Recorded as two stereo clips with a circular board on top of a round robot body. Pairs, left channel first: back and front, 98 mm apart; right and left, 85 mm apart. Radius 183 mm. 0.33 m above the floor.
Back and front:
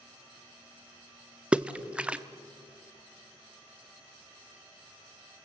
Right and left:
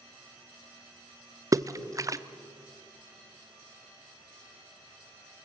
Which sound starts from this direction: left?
A splash, at 1.5 s.